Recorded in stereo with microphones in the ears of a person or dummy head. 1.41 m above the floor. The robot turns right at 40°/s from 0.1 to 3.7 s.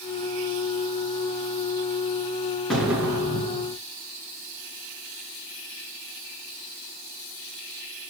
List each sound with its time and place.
2.7 s an explosion: 175° left, 3.5 m; by 3.8 s 145° right, 3.5 m